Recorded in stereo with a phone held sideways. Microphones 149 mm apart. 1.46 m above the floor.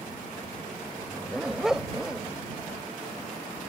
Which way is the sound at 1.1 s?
5° right (ahead or behind).